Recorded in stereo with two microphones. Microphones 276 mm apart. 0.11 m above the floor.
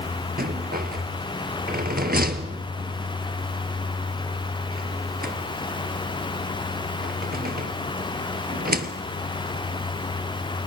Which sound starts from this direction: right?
A rattle, at 0.4 s.